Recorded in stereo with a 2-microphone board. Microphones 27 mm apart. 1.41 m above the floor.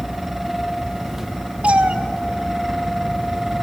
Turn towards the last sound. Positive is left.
turn(degrees=-50)  # may be behind; listen again after turning